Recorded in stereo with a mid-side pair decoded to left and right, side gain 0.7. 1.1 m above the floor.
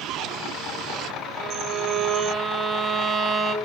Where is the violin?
30° right, 0.8 m.